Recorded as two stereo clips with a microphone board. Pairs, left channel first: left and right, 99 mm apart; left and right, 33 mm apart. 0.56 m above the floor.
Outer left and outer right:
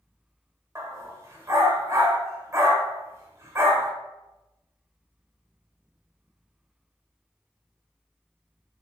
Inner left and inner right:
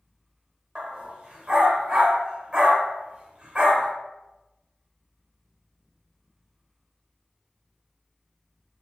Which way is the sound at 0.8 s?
30° right (ahead or behind).